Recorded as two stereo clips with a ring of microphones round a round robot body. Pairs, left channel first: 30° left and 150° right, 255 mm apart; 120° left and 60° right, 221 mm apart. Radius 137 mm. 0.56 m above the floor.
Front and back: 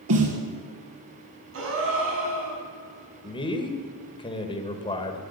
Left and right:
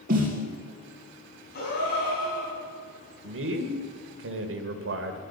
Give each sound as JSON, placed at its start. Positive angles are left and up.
{"t": 0.1, "sound": "a snare drum", "azimuth_deg": -120, "distance_m": 3.5}
{"t": 1.5, "sound": "a gasp", "azimuth_deg": 170, "distance_m": 4.5}
{"t": 3.2, "sound": "a man speaking", "azimuth_deg": -40, "distance_m": 1.9}